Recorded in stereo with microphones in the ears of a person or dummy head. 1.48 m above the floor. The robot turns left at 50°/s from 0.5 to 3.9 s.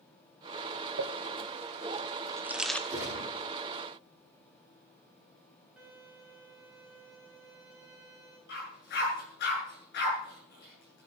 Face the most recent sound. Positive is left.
turn(degrees=60)  # may be behind; listen again after turning